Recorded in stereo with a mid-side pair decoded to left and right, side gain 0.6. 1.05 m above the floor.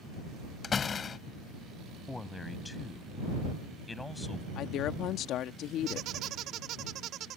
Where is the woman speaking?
60° left.